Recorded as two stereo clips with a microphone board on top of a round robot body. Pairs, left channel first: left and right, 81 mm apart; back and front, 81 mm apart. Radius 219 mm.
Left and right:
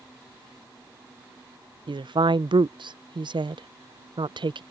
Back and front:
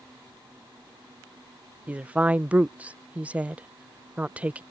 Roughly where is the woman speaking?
Right.